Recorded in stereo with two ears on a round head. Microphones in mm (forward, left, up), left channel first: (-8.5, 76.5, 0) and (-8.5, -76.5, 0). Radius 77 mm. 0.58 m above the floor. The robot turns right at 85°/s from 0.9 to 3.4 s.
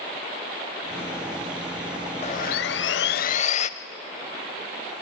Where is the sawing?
35° left, 0.7 m; by 3.7 s 135° left, 0.7 m.